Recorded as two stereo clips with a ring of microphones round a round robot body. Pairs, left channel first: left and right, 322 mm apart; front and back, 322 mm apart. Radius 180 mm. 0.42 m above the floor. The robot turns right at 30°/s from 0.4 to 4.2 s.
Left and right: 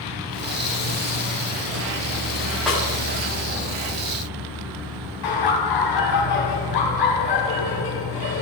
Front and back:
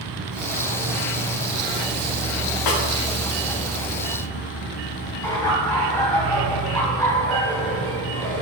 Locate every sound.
0.0 s an insect: 170° right, 3 m; by 8.4 s 55° right, 3 m
2.7 s a snare drum: straight ahead, 2.5 m; by 2.8 s 5° left, 2.5 m
5.2 s laughter: 80° left, 3 m